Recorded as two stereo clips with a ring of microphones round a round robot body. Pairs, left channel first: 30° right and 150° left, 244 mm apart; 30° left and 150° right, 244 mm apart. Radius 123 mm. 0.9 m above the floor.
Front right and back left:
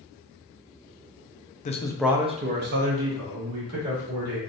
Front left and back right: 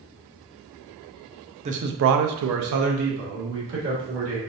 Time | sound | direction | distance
1.6 | a man speaking | 90° right | 0.6 m